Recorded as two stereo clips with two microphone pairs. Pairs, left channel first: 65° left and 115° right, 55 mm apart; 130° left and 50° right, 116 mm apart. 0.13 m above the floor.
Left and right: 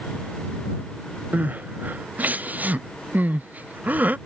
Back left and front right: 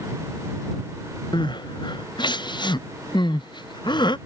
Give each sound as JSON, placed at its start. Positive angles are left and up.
{"t": 1.3, "sound": "crying", "azimuth_deg": -175}